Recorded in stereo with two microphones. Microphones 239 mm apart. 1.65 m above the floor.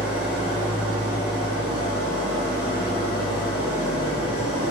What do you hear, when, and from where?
0.0 s an engine running: 70° left (ahead or behind), 3 m